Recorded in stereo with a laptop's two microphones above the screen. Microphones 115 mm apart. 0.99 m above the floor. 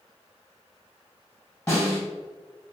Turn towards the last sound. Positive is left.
turn(degrees=20)  # may be behind; listen again after turning